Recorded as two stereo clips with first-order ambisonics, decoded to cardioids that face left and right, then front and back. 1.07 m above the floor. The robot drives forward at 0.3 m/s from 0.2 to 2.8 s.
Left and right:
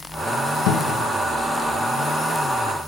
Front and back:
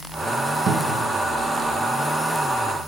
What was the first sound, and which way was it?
A cupboard door, 120° left.